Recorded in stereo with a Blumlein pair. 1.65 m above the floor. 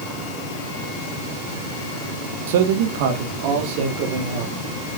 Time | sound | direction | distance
2.5 | a man speaking | 55° right | 1.6 m